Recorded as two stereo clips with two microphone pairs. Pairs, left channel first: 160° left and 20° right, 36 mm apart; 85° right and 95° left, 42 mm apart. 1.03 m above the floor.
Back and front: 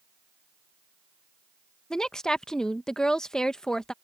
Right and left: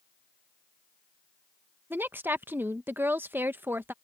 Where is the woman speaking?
90° left.